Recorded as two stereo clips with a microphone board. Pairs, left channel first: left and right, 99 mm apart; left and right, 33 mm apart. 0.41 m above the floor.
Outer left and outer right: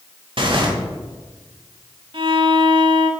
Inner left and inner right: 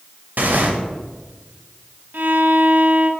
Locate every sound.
0.4 s tearing paper: 60° right (ahead or behind), 1.0 m
2.1 s a violin: 60° right (ahead or behind), 0.7 m